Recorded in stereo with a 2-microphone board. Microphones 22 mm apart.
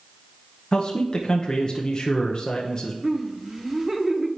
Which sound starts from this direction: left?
A man speaking, at 0.7 s.